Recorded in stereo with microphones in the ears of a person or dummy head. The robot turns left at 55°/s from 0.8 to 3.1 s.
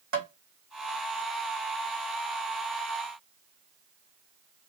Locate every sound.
0.1 s tapping: 65° right (ahead or behind), 1.8 m